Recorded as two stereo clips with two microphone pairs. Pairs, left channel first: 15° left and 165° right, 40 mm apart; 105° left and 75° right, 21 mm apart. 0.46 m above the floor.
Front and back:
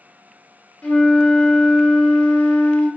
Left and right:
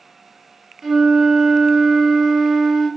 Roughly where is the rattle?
I don't hear a rattle.